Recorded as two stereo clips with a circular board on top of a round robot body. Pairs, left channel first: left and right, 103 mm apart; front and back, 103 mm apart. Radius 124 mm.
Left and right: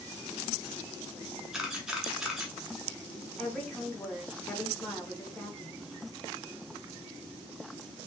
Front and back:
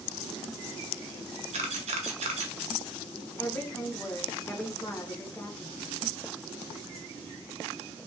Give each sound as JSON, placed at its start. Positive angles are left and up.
{"t": 1.5, "sound": "a camera shutter", "azimuth_deg": -175, "distance_m": 0.8}
{"t": 3.4, "sound": "a woman speaking", "azimuth_deg": 20, "distance_m": 1.0}